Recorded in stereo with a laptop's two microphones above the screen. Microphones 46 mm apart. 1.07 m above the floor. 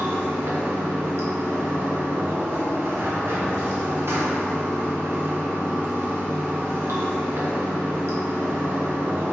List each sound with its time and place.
0.0 s running water: 65° right (ahead or behind), 1.0 m